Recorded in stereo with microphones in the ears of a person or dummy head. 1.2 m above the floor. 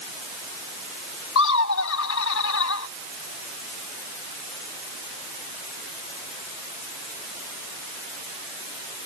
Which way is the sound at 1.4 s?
75° left (ahead or behind).